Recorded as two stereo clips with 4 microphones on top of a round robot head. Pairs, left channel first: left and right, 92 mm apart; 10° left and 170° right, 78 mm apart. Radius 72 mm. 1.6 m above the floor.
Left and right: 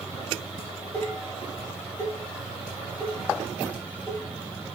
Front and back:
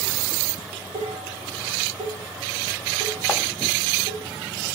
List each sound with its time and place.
0.6 s dishes clattering: 170° left, 7 m